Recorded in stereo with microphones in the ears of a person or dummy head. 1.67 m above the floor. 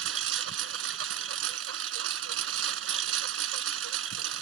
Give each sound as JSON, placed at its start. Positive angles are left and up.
{"t": 0.0, "sound": "a lawn mower", "side_deg": -75}